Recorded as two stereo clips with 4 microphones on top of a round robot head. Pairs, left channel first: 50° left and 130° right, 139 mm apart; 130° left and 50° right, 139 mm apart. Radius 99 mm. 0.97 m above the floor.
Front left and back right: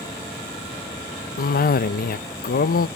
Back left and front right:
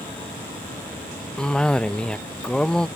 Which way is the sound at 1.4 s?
45° left.